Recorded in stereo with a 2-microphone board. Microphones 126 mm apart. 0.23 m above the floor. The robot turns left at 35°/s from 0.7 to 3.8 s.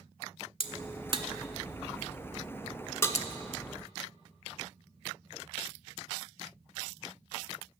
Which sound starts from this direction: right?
A crack, at 0.6 s.